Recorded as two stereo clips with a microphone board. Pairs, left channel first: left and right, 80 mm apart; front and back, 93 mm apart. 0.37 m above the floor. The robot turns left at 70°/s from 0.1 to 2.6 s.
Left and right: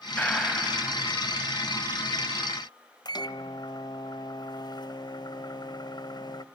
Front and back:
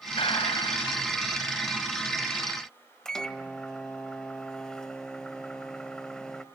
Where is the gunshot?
20° left, 2.5 m; by 1.1 s 45° right, 2.5 m.